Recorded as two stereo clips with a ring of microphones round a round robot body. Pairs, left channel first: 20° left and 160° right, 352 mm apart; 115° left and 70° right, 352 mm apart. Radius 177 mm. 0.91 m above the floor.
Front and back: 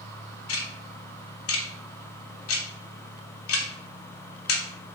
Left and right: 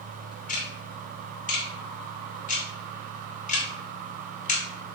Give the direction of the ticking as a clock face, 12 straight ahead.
10 o'clock.